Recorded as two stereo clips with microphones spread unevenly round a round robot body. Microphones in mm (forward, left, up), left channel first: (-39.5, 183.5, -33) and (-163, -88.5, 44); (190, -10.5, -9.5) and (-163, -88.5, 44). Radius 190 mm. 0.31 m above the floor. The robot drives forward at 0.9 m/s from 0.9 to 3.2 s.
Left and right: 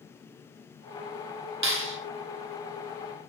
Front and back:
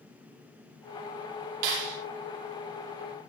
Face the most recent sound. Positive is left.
turn(degrees=-165)